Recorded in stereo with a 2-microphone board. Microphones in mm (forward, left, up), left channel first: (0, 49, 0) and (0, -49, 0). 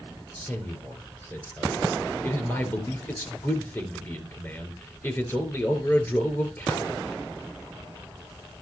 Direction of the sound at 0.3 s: 25° left (ahead or behind).